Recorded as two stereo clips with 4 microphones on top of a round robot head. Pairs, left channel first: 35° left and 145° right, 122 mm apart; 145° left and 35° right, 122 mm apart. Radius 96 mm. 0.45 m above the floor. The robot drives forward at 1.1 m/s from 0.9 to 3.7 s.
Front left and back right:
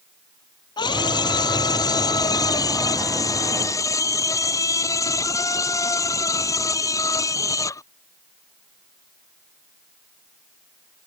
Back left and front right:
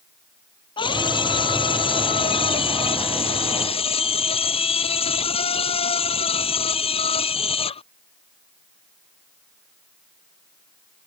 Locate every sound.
0.8 s a scream: 90° left; by 7.9 s 100° left